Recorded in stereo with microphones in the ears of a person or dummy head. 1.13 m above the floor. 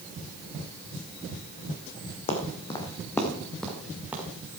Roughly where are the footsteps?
Left.